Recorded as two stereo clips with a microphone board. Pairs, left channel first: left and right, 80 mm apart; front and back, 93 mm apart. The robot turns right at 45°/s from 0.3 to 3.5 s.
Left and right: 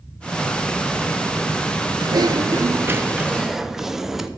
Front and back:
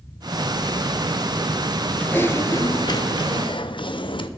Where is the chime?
I don't hear a chime.